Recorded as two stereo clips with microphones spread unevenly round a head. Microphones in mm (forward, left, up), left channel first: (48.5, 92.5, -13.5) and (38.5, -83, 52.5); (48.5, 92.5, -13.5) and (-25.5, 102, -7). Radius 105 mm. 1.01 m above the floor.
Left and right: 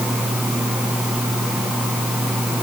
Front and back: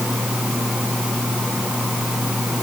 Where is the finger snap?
I don't hear a finger snap.